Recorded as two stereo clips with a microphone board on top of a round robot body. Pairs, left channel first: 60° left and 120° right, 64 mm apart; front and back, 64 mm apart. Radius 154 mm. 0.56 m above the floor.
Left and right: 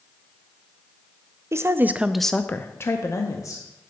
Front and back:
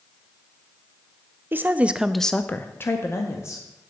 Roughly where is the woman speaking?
Behind right.